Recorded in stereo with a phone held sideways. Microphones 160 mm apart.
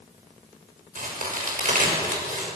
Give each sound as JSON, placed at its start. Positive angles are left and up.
{"t": 0.9, "sound": "a crack", "side_deg": -55, "distance_m": 6.5}